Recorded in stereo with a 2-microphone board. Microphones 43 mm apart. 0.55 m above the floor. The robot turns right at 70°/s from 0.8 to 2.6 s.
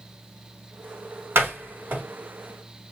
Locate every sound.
1.4 s a door slam: 65° right (ahead or behind), 1.6 m; by 2.0 s 35° right (ahead or behind), 1.6 m